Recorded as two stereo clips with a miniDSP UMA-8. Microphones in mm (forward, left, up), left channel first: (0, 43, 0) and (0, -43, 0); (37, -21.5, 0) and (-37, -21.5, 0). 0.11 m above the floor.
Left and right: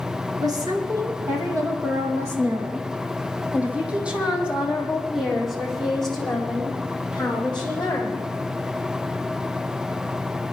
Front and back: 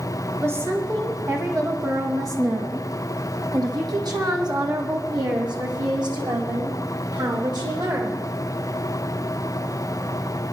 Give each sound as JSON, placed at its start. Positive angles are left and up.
{"t": 0.4, "sound": "a woman speaking", "azimuth_deg": -125, "distance_m": 3.5}